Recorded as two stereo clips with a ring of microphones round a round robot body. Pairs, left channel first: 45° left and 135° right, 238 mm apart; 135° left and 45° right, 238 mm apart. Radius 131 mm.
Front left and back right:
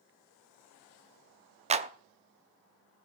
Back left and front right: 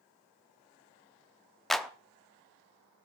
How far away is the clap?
About 0.7 m.